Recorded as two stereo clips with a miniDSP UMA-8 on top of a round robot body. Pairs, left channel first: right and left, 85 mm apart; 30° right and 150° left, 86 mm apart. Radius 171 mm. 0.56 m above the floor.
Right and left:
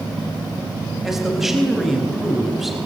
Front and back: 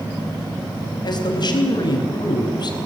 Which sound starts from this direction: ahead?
A man speaking, at 1.0 s.